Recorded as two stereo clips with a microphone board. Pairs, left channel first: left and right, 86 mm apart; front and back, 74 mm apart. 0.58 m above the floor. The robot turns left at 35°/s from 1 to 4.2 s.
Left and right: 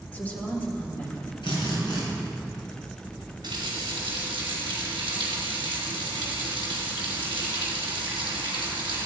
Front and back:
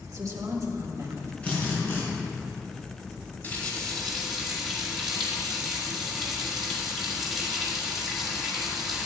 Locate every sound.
0.1 s a woman speaking: 160° left, 1.7 m; by 1.3 s 145° left, 1.7 m
1.4 s a drill: 70° left, 4.5 m; by 2.0 s 50° left, 4.5 m
3.4 s a running tap: 65° right, 3.5 m; by 9.1 s 90° right, 3.5 m